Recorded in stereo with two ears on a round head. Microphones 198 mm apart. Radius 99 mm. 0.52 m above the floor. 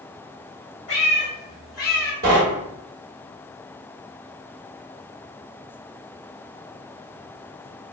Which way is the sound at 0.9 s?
50° left (ahead or behind).